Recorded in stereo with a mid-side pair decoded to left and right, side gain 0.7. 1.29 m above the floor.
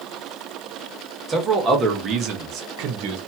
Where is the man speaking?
25° right, 1.5 m; by 3.2 s 75° right, 1.0 m.